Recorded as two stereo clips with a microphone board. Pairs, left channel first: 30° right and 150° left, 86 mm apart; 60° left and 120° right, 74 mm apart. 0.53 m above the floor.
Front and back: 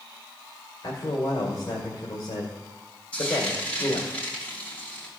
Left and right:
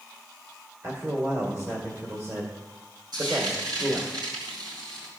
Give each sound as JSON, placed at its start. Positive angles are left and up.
{"t": 0.8, "sound": "a man speaking", "azimuth_deg": -70, "distance_m": 2.0}
{"t": 3.1, "sound": "frying", "azimuth_deg": -105, "distance_m": 4.0}